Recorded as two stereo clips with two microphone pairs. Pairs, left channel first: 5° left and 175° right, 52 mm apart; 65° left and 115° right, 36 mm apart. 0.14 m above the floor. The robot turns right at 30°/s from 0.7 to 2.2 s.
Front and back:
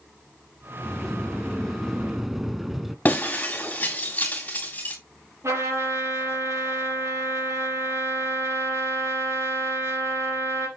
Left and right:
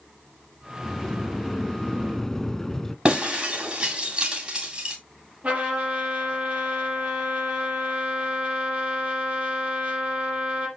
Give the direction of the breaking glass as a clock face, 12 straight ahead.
2 o'clock.